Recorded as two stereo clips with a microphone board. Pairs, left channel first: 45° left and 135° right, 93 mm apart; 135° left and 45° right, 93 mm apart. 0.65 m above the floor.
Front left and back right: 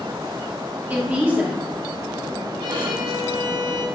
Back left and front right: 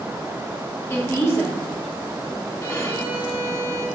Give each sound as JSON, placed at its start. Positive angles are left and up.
{"t": 0.9, "sound": "a woman speaking", "azimuth_deg": 165, "distance_m": 0.9}
{"t": 2.6, "sound": "a violin", "azimuth_deg": -165, "distance_m": 0.7}